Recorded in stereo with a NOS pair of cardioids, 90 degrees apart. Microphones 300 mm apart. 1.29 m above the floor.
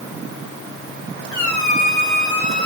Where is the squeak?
65° left, 4.5 m.